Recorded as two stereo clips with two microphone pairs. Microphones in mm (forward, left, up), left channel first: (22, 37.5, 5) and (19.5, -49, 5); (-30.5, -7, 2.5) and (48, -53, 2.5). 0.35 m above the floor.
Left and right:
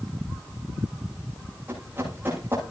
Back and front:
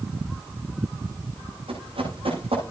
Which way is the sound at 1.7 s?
25° right.